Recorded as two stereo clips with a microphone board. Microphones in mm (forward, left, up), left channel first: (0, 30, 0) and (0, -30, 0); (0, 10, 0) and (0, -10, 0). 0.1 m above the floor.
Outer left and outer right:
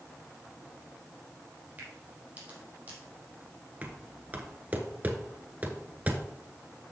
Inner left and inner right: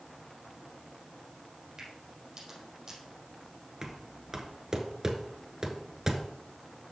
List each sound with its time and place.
1.8 s a crack: 25° right (ahead or behind), 4.5 m
3.8 s knocking: 25° right (ahead or behind), 1.2 m